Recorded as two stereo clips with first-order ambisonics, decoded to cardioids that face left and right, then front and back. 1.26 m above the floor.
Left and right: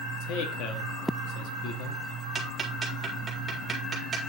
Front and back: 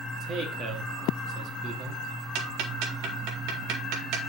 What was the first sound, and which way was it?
A man speaking, 120° left.